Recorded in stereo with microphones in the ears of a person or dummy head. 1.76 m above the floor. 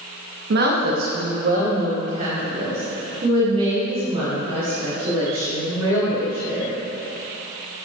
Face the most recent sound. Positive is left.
turn(degrees=-30)  # may be behind; listen again after turning